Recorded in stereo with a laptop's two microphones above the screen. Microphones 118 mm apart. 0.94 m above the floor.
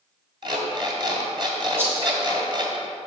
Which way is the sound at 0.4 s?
45° right (ahead or behind).